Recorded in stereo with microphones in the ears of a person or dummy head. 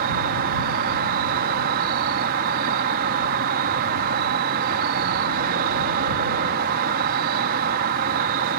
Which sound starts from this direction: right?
An insect, at 0.0 s.